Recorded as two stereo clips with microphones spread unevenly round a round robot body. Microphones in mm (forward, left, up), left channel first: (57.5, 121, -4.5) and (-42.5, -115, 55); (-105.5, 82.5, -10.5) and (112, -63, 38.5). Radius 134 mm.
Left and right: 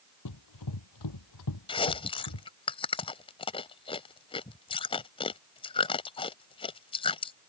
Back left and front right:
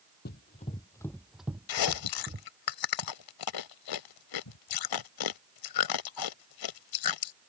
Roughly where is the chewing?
Behind left.